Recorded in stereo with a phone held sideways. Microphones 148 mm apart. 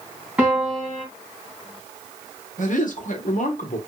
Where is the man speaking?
65° left (ahead or behind), 1.2 m.